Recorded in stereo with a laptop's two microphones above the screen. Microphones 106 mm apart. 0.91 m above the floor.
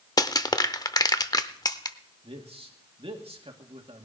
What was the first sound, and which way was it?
Crushing, 40° left (ahead or behind).